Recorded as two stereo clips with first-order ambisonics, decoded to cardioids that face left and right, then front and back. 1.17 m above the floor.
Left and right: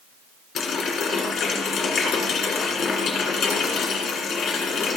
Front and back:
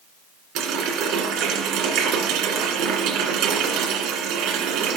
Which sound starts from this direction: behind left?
A running tap, at 0.6 s.